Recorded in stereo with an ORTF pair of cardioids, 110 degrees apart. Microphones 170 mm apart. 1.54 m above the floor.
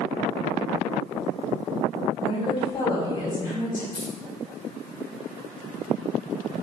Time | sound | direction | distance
2.2 | a woman speaking | 30° left | 3 m
3.9 | keys jangling | 25° left | 2.5 m